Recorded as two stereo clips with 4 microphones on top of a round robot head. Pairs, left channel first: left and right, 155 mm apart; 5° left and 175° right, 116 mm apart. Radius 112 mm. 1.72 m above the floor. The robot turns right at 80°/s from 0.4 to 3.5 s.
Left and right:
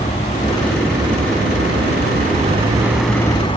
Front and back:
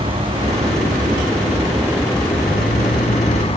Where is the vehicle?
150° left; by 3.6 s 35° left.